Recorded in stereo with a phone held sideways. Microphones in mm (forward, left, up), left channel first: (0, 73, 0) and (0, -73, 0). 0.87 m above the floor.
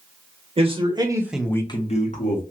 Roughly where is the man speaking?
Right.